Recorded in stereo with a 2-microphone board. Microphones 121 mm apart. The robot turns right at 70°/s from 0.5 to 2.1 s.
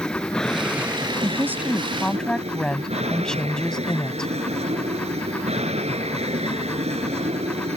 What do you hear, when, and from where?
0.0 s an aircraft: 175° left; by 7.8 s 75° right
1.2 s a woman speaking: 50° right; by 4.3 s 10° left